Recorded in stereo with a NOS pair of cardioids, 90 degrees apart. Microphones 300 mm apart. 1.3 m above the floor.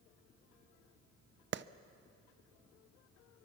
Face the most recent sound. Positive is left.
turn(degrees=-40)